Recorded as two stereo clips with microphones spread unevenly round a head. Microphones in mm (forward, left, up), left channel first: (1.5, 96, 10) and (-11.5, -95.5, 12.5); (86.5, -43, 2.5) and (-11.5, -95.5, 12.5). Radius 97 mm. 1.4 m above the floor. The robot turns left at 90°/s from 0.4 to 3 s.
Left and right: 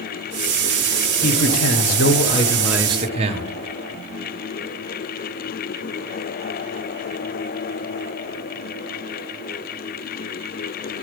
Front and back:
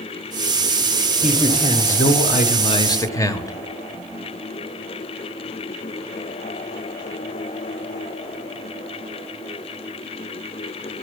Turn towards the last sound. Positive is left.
turn(degrees=-35)